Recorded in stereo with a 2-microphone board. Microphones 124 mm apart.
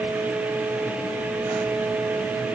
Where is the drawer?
No drawer in this recording.